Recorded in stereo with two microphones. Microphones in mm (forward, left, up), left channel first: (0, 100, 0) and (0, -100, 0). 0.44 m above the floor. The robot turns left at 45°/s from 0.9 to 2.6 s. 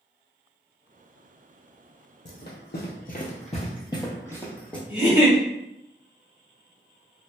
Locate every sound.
2.2 s running footsteps: 60° left (ahead or behind), 0.8 m; by 4.8 s 5° left (ahead or behind), 1.1 m
4.9 s a giggle: 5° right (ahead or behind), 1.6 m